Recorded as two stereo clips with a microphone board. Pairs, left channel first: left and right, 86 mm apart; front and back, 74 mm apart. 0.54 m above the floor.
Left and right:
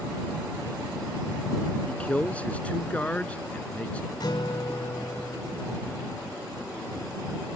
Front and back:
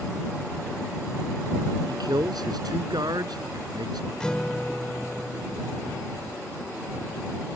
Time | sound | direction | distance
1.9 | a man speaking | 165° left | ?
4.2 | a guitar | 75° left | ?